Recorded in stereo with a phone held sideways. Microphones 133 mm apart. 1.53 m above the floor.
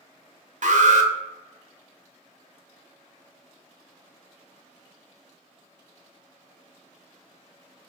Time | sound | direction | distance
0.6 | an alarm | 70° right (ahead or behind) | 0.7 m